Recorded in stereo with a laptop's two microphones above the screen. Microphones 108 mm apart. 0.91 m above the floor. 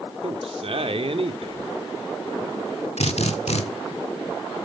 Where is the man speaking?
60° right (ahead or behind), 2 m.